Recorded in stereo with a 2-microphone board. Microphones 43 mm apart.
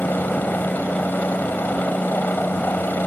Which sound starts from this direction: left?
A helicopter, at 0.0 s.